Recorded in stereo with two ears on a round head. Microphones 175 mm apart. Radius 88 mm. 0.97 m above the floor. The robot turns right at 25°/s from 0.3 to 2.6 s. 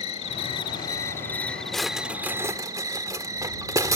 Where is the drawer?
5° left (ahead or behind); by 4.0 s 15° right (ahead or behind).